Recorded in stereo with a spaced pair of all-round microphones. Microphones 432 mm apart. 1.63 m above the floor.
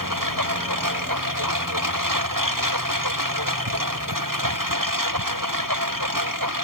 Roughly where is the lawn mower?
Right.